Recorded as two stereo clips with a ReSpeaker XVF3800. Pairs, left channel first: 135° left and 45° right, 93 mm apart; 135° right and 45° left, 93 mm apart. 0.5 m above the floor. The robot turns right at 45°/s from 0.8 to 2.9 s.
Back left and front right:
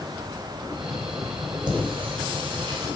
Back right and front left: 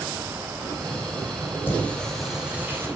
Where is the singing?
70° right, 3.5 m; by 2.9 s 15° right, 3.5 m.